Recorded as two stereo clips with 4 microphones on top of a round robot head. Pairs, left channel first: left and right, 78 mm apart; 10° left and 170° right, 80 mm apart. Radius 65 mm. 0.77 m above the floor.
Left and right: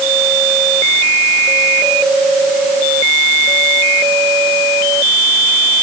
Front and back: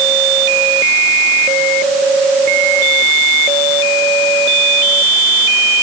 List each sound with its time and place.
Only background noise.